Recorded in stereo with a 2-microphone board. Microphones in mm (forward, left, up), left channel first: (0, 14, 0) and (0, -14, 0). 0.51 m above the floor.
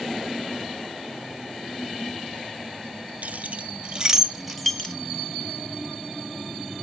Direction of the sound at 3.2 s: 60° right (ahead or behind).